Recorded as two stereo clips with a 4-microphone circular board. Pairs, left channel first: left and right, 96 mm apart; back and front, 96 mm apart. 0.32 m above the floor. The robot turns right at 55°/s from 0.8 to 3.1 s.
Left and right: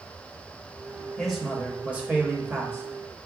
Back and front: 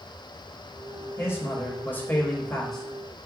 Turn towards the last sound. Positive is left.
turn(degrees=-80)